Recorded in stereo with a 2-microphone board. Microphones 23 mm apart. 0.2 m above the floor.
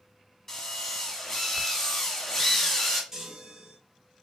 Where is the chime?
10° right (ahead or behind), 1.1 m.